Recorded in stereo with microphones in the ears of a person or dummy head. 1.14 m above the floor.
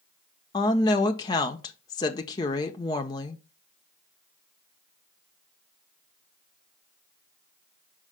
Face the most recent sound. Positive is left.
turn(degrees=20)  # may be behind; listen again after turning